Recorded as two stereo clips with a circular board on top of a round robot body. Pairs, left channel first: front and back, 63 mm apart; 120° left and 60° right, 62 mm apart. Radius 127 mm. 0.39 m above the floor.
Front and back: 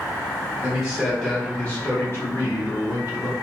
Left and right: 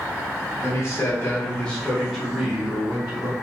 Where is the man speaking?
120° left, 1.3 m; by 3.3 s 15° right, 1.7 m.